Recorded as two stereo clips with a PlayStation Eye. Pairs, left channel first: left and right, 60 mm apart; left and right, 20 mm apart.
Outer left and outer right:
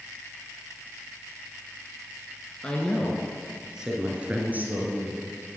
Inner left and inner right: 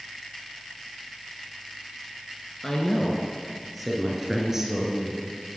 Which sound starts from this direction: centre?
A woman speaking, at 2.6 s.